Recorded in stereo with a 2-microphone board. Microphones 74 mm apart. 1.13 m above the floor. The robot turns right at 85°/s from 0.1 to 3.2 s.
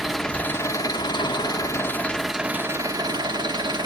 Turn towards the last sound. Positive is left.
turn(degrees=-100)